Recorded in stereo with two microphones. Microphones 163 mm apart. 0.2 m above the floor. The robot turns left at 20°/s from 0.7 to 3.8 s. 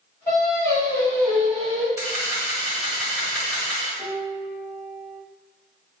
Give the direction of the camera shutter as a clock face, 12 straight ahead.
5 o'clock.